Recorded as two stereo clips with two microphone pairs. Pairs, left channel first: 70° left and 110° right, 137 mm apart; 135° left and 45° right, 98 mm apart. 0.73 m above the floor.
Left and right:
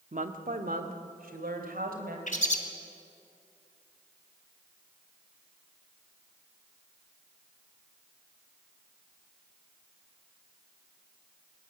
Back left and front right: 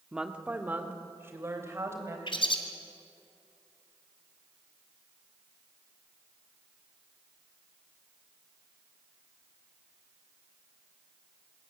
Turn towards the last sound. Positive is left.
turn(degrees=100)